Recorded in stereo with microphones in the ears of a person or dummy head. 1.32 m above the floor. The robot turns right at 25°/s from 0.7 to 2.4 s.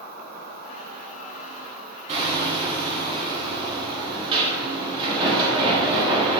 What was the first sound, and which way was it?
An insect, 60° right.